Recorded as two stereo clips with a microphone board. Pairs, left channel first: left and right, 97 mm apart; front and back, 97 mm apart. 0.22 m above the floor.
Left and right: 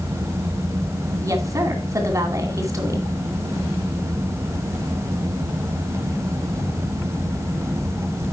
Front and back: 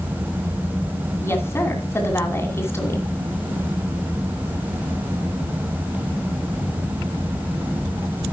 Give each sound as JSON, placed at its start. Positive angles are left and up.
{"t": 1.2, "sound": "a woman speaking", "azimuth_deg": -50, "distance_m": 2.5}